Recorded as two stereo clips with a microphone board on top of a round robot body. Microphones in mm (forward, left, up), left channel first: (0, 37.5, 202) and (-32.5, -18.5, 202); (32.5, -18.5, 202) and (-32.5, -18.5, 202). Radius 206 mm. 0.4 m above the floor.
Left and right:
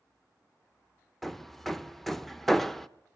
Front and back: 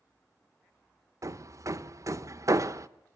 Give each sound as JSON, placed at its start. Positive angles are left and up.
{"t": 1.2, "sound": "hammering", "azimuth_deg": 145, "distance_m": 0.8}